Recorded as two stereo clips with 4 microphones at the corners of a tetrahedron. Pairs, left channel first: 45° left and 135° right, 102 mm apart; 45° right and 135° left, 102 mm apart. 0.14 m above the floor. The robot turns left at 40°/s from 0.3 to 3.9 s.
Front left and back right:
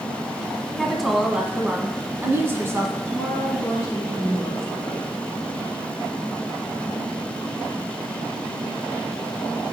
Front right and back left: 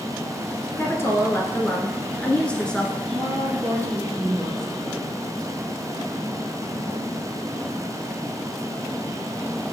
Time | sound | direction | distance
0.8 | a woman speaking | 40° right | 1.2 m
3.0 | a woman speaking | 115° left | 2 m